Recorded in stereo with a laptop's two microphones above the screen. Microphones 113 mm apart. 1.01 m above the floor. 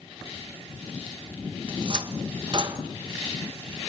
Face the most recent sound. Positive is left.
turn(degrees=-45)  # may be behind; listen again after turning